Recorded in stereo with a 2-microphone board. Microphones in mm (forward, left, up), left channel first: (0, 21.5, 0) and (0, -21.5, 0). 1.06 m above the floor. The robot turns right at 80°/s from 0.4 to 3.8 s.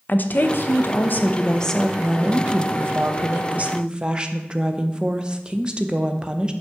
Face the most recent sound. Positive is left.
turn(degrees=-25)